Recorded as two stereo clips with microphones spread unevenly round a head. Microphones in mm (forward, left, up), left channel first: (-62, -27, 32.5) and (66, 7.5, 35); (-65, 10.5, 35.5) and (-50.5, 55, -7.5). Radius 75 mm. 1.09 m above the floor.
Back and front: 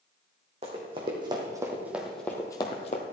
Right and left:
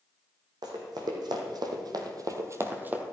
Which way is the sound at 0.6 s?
65° left.